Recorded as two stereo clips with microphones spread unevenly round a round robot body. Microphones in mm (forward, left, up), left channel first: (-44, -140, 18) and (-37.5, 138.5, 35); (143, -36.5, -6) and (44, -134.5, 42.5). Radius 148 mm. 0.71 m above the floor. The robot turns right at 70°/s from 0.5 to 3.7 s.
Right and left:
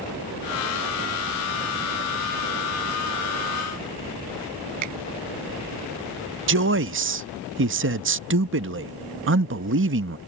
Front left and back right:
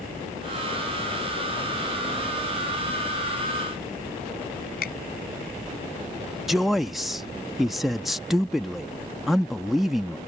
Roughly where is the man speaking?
Behind left.